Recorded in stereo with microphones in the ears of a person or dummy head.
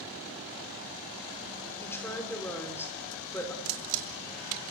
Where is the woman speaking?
15° left (ahead or behind), 4 m.